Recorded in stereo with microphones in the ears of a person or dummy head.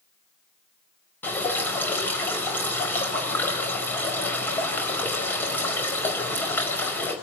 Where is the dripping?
15° left (ahead or behind), 4.5 m.